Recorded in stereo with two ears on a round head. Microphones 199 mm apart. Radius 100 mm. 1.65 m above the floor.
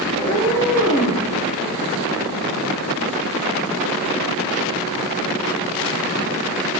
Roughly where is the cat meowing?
Centre.